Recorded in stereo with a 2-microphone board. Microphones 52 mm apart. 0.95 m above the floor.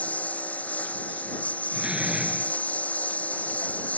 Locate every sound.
0.0 s a lawn mower: 30° left (ahead or behind)
1.7 s a door slam: 15° right (ahead or behind)